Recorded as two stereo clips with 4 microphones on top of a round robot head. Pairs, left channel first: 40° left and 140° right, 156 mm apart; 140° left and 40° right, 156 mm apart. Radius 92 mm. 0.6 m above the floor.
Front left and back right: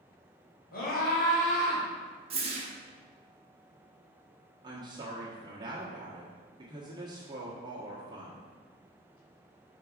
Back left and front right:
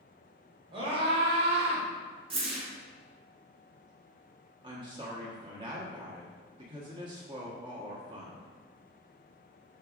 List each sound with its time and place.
0.7 s a scream: 20° left, 2.5 m; by 1.9 s straight ahead, 1.8 m
2.3 s a whoosh: 90° right, 1.5 m
4.6 s a woman speaking: 85° right, 1.4 m